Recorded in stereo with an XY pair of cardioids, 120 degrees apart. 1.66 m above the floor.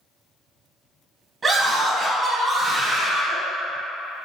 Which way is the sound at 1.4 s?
35° right.